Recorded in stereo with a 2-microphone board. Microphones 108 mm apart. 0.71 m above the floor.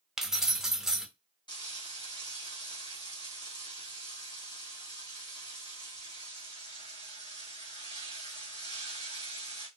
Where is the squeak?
No squeak in this recording.